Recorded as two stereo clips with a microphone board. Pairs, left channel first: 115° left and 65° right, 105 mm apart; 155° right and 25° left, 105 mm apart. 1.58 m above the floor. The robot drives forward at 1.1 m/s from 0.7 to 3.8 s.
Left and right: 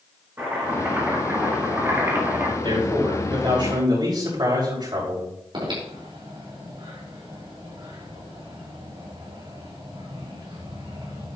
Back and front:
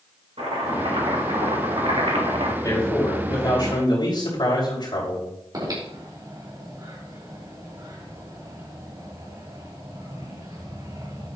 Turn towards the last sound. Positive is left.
turn(degrees=-30)